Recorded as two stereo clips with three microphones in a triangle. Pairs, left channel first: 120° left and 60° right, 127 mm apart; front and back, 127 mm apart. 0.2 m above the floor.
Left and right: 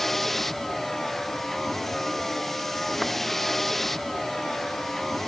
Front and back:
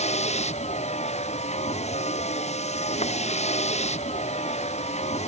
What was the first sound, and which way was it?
A vehicle, 30° left.